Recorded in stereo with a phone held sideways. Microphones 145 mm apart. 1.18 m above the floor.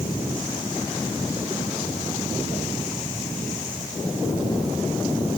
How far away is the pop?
I don't hear a pop.